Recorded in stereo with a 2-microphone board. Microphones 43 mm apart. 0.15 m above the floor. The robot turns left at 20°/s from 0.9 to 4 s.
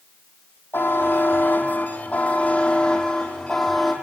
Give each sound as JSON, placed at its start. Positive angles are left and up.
{"t": 0.7, "sound": "a buzzer", "azimuth_deg": 65, "distance_m": 3.5}